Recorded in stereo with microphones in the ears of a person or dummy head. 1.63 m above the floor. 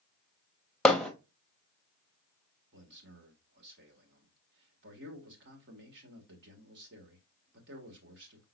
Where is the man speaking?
60° right (ahead or behind), 1.8 m.